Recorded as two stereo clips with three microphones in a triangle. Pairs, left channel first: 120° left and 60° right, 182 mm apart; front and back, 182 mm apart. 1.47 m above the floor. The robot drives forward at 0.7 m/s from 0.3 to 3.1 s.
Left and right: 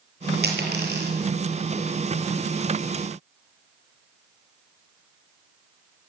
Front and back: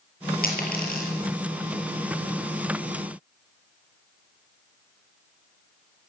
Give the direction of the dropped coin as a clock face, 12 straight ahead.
1 o'clock.